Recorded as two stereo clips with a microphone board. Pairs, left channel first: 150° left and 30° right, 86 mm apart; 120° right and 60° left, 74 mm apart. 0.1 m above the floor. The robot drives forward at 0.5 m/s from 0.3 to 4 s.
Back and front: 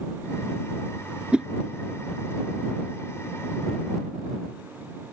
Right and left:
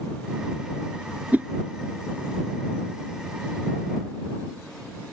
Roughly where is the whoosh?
Ahead left.